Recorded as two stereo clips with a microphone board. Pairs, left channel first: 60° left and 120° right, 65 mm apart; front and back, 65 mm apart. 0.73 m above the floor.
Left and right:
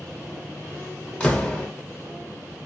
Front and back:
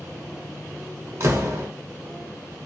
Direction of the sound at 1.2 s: 135° left.